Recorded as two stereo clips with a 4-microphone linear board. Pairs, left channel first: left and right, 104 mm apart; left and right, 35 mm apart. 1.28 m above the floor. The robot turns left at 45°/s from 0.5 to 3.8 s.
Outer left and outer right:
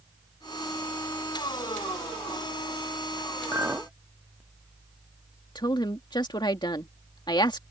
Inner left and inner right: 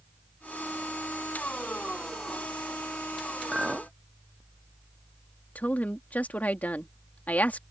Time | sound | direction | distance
3.5 | a clink | 30° right (ahead or behind) | ?
5.5 | a woman speaking | 45° left (ahead or behind) | ?